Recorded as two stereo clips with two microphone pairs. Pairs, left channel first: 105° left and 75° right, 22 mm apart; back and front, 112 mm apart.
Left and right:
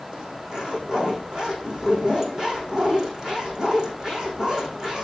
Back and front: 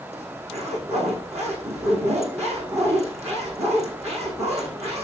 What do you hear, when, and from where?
0.1 s a zipper: 15° right, 7 m